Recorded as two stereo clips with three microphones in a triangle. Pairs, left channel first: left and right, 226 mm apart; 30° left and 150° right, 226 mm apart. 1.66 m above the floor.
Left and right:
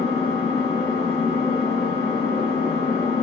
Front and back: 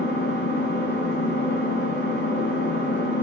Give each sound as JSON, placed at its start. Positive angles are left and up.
{"t": 0.0, "sound": "an engine running", "azimuth_deg": 30, "distance_m": 1.9}